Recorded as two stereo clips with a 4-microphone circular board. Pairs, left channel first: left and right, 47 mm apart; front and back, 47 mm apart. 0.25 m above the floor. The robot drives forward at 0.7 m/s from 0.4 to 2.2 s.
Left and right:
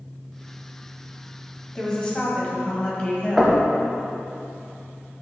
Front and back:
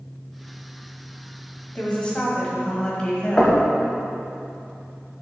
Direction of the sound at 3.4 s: 25° right.